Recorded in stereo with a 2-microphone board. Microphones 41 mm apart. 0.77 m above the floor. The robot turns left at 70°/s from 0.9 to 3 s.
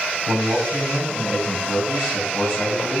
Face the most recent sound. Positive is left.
turn(degrees=120)